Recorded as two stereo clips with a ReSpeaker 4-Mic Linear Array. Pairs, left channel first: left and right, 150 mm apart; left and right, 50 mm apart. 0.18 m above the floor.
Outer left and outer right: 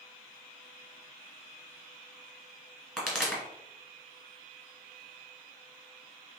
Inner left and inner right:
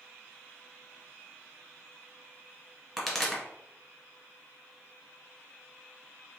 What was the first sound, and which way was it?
A pop, 5° right (ahead or behind).